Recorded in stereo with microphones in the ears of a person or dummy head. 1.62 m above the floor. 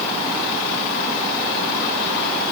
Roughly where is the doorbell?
I don't hear a doorbell.